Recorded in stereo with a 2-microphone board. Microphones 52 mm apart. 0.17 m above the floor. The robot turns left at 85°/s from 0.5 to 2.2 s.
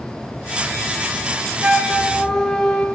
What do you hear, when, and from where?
1.6 s a flute: 145° right, 0.5 m; by 2.9 s 165° left, 0.5 m